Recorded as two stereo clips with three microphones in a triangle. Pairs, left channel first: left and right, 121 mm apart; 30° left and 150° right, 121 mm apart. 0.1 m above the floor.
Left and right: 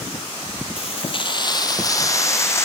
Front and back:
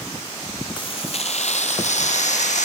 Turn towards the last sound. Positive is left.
turn(degrees=20)